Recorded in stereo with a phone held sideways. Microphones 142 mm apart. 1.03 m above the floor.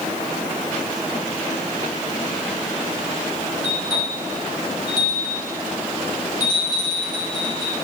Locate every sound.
3.6 s a bell: 35° left (ahead or behind), 5 m